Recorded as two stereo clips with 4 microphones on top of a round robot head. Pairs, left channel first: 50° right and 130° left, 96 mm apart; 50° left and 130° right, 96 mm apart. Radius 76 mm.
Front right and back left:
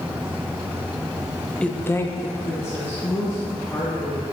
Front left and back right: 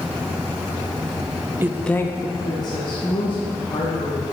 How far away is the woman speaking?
About 0.5 m.